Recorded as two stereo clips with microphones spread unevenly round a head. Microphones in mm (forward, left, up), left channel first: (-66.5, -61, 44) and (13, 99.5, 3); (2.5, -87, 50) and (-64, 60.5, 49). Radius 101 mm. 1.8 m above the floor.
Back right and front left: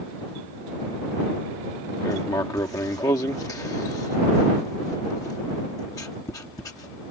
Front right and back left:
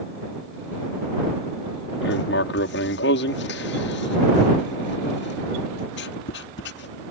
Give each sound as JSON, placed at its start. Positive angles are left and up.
{"t": 2.0, "sound": "writing", "azimuth_deg": -45}